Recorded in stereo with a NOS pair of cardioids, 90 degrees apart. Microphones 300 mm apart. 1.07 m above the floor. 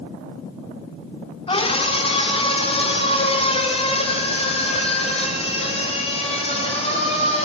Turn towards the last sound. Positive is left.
turn(degrees=20)